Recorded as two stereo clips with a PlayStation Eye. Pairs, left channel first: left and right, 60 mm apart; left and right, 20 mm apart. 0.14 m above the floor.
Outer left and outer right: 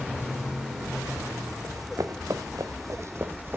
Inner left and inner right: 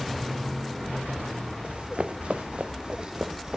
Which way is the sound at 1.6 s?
75° right (ahead or behind).